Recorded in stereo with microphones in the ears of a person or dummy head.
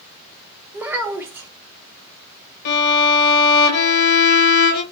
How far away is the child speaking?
About 0.9 m.